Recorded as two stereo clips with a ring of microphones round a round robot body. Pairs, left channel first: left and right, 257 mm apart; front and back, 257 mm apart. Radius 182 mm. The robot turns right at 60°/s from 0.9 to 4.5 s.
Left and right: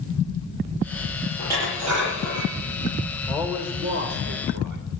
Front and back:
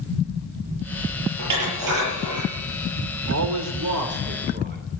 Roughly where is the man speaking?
Behind.